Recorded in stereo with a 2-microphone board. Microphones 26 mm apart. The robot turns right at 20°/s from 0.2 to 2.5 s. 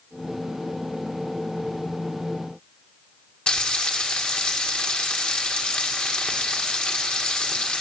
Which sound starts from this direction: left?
Frying, at 3.5 s.